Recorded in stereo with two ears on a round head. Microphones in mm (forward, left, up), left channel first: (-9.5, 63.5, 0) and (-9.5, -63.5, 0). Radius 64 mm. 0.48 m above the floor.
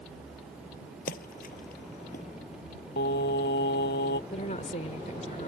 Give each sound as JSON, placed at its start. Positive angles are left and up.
{"t": 1.1, "sound": "a splash", "side_deg": 70}
{"t": 3.0, "sound": "singing", "side_deg": 70}
{"t": 4.3, "sound": "a woman speaking", "side_deg": 50}